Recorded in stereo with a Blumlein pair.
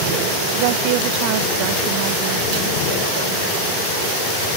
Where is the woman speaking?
45° right; by 4.2 s 40° right.